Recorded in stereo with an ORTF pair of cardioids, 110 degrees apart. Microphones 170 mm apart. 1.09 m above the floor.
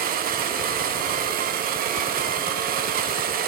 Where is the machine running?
60° right, 0.8 m.